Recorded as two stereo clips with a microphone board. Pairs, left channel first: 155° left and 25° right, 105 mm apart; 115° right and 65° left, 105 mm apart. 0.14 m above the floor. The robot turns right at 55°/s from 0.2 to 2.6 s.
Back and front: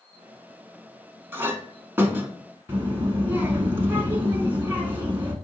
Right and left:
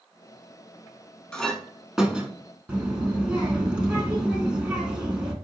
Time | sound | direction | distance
1.3 | a clink | 45° right | 0.7 m
2.7 | a child speaking | 5° left | 0.6 m